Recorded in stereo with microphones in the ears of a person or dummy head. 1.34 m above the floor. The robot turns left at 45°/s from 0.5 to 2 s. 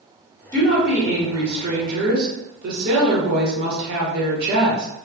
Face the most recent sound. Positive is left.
turn(degrees=-50)